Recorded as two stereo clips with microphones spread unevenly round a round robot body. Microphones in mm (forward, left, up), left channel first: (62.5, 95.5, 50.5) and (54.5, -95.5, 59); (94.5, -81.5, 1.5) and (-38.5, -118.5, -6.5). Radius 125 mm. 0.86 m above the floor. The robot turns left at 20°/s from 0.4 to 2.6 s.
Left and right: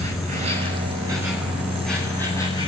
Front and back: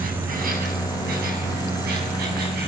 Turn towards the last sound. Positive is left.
turn(degrees=160)